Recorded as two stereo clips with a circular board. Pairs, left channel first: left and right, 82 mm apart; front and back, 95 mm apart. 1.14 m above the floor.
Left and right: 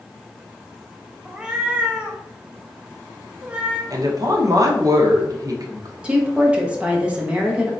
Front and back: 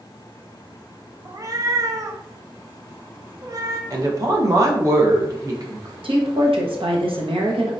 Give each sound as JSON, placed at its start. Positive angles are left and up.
{"t": 1.2, "sound": "a cat meowing", "azimuth_deg": -160, "distance_m": 0.5}
{"t": 3.9, "sound": "a woman speaking", "azimuth_deg": -130, "distance_m": 0.9}
{"t": 6.0, "sound": "a woman speaking", "azimuth_deg": -165, "distance_m": 1.0}